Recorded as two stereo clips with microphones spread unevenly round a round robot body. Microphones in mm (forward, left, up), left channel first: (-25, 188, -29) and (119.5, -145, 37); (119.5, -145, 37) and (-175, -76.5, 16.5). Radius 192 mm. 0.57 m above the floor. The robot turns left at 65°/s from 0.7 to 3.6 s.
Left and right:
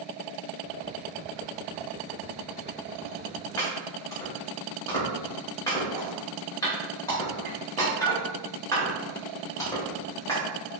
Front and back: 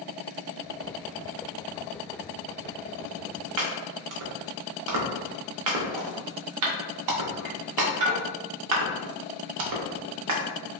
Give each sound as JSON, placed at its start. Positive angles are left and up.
{"t": 3.6, "sound": "chopping", "azimuth_deg": -160, "distance_m": 0.6}